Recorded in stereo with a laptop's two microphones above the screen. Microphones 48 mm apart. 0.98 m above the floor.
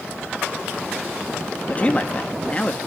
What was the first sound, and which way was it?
A man speaking, 30° left (ahead or behind).